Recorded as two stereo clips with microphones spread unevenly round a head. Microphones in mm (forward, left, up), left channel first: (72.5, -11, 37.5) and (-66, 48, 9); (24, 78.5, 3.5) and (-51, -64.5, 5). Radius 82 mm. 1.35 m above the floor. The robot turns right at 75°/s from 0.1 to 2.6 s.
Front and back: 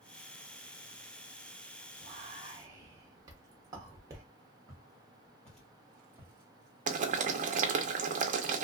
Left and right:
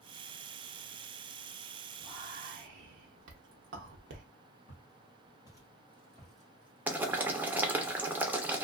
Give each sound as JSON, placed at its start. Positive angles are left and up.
{"t": 2.0, "sound": "whispering", "azimuth_deg": 180, "distance_m": 0.6}
{"t": 4.7, "sound": "footsteps", "azimuth_deg": 25, "distance_m": 1.7}
{"t": 6.9, "sound": "boiling", "azimuth_deg": 165, "distance_m": 0.6}